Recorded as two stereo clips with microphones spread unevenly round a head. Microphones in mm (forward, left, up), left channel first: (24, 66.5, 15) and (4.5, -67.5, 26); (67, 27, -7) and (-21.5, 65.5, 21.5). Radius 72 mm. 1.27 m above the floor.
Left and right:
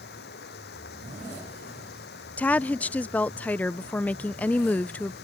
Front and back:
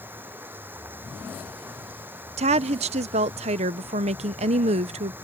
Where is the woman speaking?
155° left.